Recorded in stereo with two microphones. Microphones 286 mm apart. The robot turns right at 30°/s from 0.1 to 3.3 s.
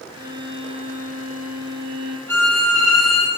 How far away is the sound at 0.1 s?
About 1.4 m.